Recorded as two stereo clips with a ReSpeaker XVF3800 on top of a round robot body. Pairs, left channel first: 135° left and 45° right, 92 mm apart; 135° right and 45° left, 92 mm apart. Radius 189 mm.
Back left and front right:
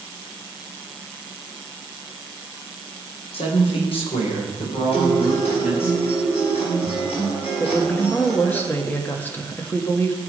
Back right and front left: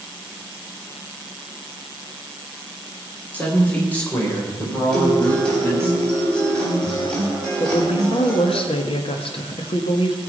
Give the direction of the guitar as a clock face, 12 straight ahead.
7 o'clock.